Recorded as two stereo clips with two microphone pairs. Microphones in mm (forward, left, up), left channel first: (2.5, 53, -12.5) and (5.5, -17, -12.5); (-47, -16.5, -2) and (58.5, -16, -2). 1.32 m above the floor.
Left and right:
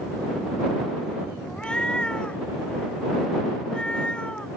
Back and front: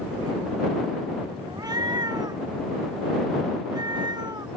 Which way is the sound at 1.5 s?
20° left.